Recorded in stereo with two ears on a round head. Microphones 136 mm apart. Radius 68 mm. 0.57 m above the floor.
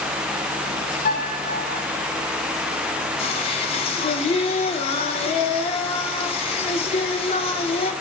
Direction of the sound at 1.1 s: 60° left (ahead or behind).